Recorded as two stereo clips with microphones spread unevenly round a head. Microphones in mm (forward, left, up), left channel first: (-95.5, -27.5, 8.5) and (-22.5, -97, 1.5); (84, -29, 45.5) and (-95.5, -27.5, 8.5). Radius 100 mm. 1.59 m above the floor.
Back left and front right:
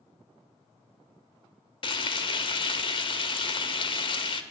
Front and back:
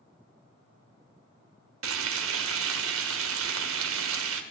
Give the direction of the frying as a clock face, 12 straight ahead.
7 o'clock.